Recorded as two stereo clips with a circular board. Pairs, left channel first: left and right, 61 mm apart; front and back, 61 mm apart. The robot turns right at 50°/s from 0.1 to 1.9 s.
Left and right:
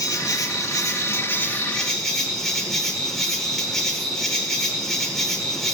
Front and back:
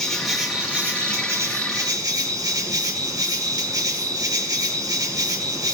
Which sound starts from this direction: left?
An insect, at 0.0 s.